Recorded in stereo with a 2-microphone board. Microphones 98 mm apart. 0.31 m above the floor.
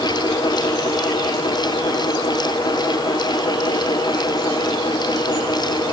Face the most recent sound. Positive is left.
No sound to turn to.